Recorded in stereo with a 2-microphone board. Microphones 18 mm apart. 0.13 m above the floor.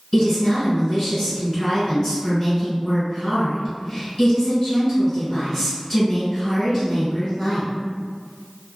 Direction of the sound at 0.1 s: 15° left (ahead or behind).